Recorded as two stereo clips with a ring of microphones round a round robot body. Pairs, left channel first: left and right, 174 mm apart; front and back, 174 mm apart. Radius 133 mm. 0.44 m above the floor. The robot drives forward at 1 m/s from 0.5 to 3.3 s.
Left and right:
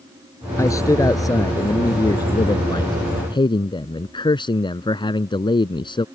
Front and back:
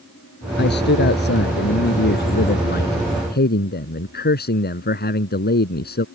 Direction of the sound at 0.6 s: 15° left.